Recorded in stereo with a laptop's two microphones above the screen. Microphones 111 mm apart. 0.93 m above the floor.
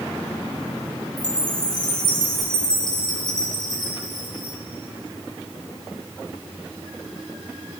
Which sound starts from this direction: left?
A chime, at 1.2 s.